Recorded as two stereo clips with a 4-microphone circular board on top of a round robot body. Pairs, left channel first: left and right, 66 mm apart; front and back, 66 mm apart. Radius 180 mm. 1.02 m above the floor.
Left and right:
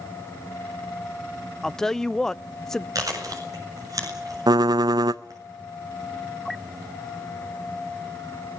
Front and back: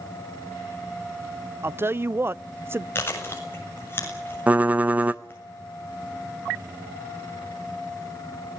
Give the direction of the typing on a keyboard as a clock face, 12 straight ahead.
4 o'clock.